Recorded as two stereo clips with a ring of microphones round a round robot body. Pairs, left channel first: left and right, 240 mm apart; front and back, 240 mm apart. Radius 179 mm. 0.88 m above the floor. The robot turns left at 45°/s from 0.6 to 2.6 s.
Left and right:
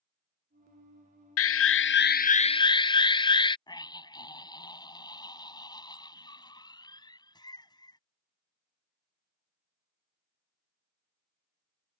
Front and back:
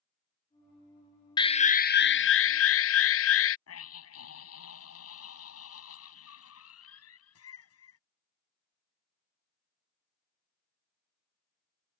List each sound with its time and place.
1.4 s an alarm: 75° left; by 3.6 s 20° left
3.7 s a scream: 15° left